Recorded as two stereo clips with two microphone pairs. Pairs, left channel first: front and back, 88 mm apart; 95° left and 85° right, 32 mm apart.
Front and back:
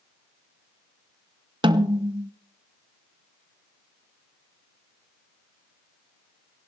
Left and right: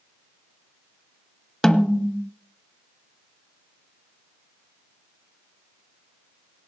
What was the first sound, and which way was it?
A snare drum, 170° left.